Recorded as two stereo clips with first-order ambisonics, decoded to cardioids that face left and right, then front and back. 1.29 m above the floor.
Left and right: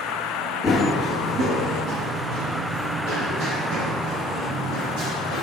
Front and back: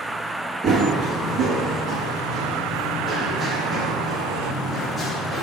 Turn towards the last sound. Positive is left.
turn(degrees=-90)